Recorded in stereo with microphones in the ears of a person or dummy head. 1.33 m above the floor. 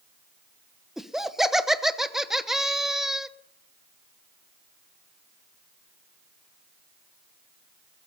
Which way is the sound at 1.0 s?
5° right (ahead or behind).